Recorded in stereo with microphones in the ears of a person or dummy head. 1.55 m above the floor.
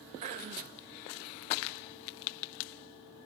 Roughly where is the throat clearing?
Right.